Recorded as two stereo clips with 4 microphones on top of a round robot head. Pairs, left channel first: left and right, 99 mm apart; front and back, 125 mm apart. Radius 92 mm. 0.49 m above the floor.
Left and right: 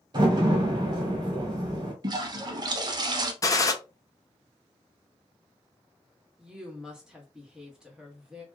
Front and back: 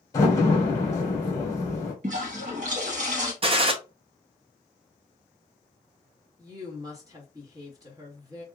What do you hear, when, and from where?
0.1 s a door slam: 60° right, 1.1 m
2.0 s a toilet flushing: 135° right, 0.6 m
3.4 s a gunshot: 140° left, 0.7 m
6.4 s a woman speaking: 165° right, 1.4 m